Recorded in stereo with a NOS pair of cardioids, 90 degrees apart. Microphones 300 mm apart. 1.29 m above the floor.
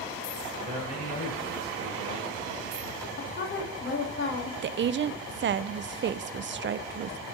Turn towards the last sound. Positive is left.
turn(degrees=-40)